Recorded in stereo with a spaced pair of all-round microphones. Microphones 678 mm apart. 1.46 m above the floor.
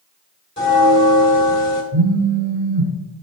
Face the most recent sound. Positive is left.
turn(degrees=-45)  # may be behind; listen again after turning